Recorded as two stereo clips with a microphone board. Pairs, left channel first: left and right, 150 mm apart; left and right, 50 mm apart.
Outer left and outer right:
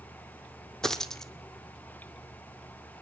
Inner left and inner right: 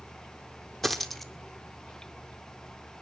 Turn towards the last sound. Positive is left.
turn(degrees=5)  # may be behind; listen again after turning